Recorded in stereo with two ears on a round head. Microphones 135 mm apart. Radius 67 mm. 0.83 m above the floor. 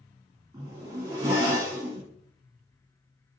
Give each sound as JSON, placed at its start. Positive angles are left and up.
{"t": 0.5, "sound": "a zipper", "side_deg": -20, "distance_m": 1.8}